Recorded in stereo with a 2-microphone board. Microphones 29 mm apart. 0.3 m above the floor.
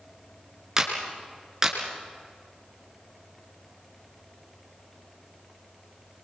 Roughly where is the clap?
Centre.